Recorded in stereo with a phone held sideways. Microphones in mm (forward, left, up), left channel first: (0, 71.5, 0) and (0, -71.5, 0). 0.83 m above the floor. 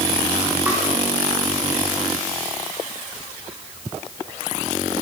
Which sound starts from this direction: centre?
Tapping, at 0.7 s.